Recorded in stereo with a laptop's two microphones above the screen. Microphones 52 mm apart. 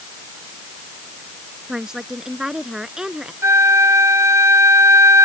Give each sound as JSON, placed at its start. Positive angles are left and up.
{"t": 1.7, "sound": "a woman speaking", "side_deg": -10}
{"t": 3.4, "sound": "a flute", "side_deg": -65}